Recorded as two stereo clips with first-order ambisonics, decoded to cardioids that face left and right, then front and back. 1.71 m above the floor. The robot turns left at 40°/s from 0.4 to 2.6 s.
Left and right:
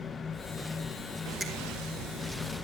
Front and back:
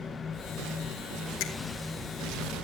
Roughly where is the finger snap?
Ahead.